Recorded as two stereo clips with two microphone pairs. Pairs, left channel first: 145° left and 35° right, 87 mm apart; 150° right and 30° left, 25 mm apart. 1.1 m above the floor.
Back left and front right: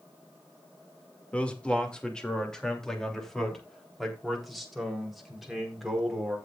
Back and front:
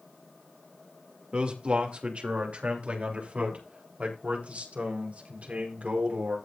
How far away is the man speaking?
About 2 m.